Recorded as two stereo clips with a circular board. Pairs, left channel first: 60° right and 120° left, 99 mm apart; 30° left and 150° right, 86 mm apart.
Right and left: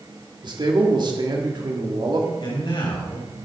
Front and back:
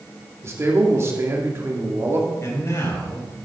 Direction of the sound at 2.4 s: 25° right.